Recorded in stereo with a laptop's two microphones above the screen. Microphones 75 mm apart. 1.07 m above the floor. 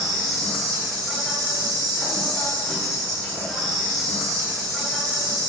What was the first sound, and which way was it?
An insect, 5° left (ahead or behind).